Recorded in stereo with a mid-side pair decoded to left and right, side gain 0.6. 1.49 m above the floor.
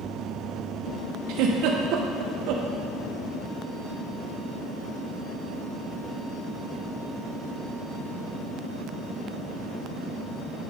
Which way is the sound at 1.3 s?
70° right.